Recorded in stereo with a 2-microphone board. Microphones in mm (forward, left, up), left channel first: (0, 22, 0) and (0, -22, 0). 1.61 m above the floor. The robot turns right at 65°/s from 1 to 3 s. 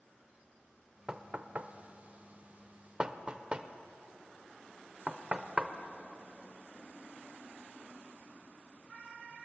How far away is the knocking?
About 0.5 m.